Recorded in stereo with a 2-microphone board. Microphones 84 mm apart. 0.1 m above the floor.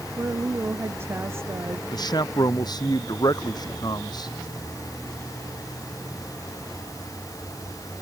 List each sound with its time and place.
0.2 s a woman speaking: 30° right (ahead or behind)
1.9 s a man speaking: 50° left (ahead or behind)